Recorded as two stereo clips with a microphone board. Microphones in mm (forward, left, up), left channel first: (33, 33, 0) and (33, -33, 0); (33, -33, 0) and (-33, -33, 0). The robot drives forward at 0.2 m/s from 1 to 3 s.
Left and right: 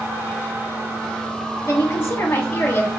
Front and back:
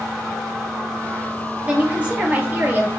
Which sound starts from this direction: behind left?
A woman speaking, at 1.6 s.